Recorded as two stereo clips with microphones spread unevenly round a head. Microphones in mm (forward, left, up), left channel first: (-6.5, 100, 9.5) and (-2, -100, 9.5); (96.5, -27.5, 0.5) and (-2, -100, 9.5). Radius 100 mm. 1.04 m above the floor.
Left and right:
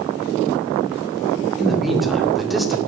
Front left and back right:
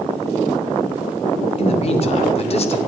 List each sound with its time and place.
1.6 s a man speaking: straight ahead, 2 m